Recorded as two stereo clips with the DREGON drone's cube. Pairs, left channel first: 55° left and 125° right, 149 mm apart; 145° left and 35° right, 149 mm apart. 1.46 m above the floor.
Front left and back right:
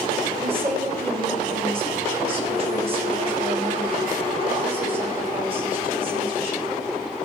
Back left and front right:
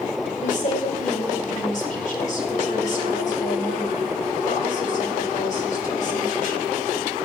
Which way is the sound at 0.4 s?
175° right.